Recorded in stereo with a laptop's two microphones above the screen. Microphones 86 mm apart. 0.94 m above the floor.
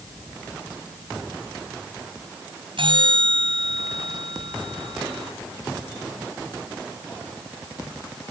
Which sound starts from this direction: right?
A bell, at 2.8 s.